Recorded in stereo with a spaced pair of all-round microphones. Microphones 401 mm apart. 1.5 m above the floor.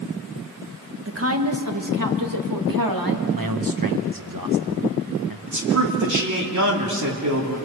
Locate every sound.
1.1 s a woman speaking: 35° right (ahead or behind), 1.6 m; by 3.2 s 65° right (ahead or behind), 2.5 m
3.3 s a man speaking: 60° right (ahead or behind), 1.4 m
5.5 s a man speaking: 50° right (ahead or behind), 3 m